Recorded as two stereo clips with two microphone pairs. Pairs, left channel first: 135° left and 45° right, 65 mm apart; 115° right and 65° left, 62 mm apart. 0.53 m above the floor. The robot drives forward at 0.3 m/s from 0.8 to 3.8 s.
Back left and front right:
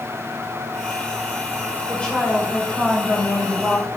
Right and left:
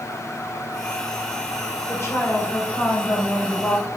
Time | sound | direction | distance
1.9 | a woman speaking | 150° right | 2.5 m